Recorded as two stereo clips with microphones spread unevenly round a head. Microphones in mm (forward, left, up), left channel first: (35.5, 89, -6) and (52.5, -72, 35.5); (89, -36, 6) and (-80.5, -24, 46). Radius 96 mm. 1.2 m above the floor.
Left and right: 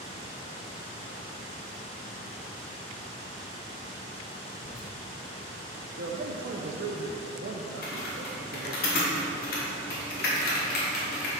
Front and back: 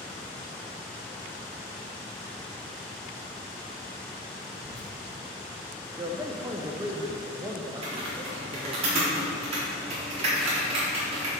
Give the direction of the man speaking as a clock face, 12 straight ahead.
4 o'clock.